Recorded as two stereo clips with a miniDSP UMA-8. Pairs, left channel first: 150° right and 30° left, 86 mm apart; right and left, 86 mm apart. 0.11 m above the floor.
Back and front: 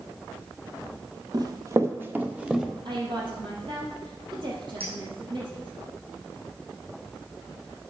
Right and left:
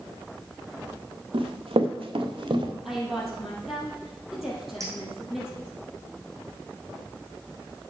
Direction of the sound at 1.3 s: 75° left.